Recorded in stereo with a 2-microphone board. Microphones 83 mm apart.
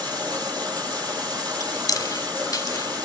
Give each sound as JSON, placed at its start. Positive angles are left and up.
{"t": 0.0, "sound": "running water", "side_deg": -70, "distance_m": 5.5}
{"t": 1.6, "sound": "chewing", "side_deg": 45, "distance_m": 0.8}